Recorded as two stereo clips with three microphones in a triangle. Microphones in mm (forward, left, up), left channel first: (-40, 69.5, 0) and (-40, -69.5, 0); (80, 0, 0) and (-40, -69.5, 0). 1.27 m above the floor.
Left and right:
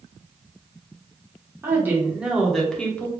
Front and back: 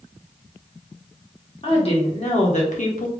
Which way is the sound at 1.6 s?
20° right.